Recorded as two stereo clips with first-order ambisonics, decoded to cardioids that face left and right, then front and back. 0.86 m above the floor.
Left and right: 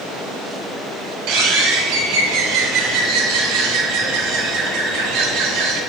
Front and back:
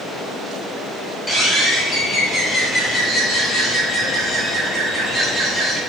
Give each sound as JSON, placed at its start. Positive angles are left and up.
{"t": 1.3, "sound": "a bird", "azimuth_deg": -75, "distance_m": 3.5}